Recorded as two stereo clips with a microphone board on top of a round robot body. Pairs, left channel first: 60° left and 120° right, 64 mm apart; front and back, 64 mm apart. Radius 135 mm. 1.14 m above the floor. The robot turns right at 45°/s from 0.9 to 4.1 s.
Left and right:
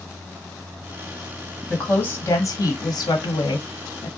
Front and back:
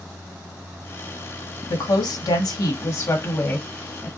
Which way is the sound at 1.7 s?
15° right.